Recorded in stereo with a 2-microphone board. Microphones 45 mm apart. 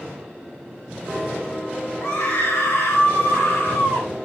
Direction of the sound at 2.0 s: 60° left (ahead or behind).